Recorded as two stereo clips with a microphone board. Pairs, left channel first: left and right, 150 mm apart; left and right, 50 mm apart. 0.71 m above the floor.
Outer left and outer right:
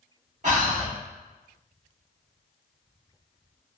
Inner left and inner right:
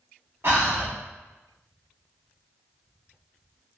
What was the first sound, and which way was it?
Breathing, 55° right (ahead or behind).